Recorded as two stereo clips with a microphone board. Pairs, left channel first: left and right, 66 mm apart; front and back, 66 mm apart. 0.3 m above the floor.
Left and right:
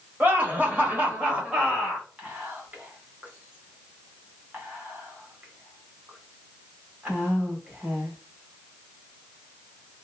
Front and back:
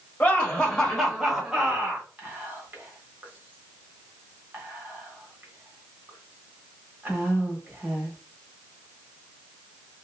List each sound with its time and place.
0.2 s laughter: 50° right, 1.2 m; by 2.1 s 160° right, 1.1 m
2.2 s whispering: 140° right, 1.1 m